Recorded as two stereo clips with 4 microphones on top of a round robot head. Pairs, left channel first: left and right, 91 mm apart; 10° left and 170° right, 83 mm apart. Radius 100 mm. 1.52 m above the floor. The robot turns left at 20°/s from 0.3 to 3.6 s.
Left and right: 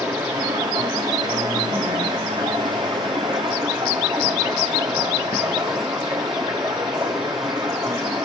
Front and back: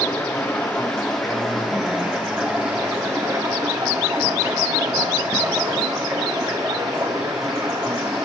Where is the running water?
55° right, 1.1 m; by 8.2 s 120° right, 1.1 m.